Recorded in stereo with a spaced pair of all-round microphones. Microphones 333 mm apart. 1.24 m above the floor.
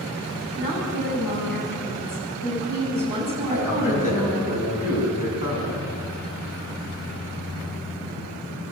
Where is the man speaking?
65° left (ahead or behind), 8.5 m.